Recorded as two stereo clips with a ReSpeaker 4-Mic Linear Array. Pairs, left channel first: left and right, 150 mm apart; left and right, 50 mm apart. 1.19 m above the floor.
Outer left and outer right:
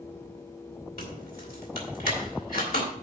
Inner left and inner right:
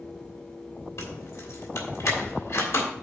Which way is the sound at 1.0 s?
80° left.